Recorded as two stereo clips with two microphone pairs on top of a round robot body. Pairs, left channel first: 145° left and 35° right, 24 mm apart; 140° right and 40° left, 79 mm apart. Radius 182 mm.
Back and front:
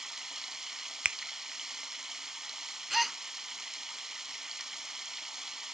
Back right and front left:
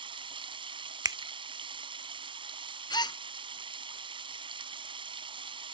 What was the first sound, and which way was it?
Running water, 40° left.